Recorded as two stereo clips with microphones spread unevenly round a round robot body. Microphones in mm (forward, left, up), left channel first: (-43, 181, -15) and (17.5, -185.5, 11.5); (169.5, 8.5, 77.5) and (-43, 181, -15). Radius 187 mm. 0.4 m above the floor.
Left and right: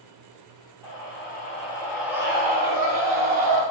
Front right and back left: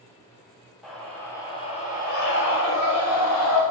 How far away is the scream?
About 1.4 m.